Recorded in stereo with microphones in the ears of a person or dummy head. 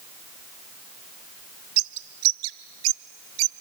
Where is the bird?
80° right, 0.6 m.